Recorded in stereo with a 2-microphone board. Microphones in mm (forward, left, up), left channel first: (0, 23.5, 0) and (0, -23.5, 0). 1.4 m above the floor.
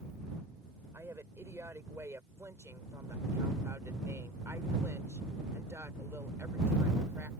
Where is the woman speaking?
75° right (ahead or behind); by 7.3 s 60° right (ahead or behind).